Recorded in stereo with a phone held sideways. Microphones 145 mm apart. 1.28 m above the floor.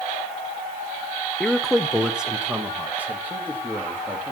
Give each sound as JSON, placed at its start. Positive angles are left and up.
{"t": 1.4, "sound": "a man speaking", "side_deg": 5, "distance_m": 0.7}